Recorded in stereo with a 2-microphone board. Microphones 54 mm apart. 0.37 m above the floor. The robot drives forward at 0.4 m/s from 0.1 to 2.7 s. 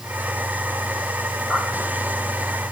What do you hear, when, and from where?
1.5 s a pop: 60° right (ahead or behind), 9 m